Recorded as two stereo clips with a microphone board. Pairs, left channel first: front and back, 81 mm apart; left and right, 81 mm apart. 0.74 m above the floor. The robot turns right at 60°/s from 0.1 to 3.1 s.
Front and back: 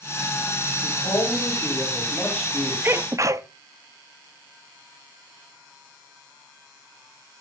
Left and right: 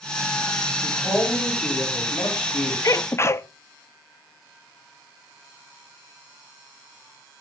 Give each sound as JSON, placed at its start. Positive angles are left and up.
{"t": 0.8, "sound": "a man speaking", "azimuth_deg": -10, "distance_m": 5.0}
{"t": 2.8, "sound": "a sneeze", "azimuth_deg": 125, "distance_m": 0.8}